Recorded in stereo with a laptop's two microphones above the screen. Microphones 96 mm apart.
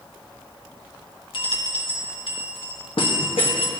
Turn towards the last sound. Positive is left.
turn(degrees=70)  # may be behind; listen again after turning